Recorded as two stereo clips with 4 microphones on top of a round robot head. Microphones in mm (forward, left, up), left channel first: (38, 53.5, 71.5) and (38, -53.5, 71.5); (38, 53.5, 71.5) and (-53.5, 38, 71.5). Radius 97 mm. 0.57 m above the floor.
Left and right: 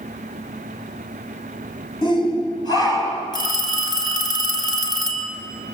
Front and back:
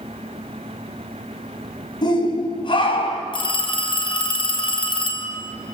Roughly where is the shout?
Ahead left.